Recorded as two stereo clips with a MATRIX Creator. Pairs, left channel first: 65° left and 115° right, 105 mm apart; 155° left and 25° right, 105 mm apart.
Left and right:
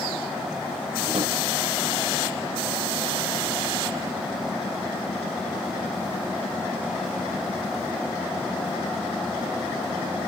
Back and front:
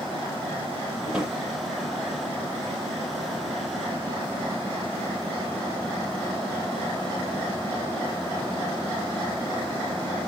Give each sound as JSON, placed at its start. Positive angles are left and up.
{"t": 1.1, "sound": "a drawer", "azimuth_deg": -105, "distance_m": 8.0}